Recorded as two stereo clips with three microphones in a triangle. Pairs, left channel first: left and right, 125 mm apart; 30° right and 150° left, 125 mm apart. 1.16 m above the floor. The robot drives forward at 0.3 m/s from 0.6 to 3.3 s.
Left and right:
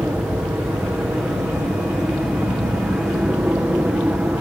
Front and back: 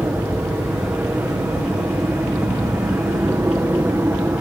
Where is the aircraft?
155° right; by 4.4 s 160° right.